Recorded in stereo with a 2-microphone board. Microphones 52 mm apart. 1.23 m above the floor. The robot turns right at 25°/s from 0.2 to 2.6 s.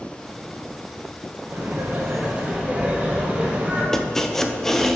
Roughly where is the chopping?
Centre.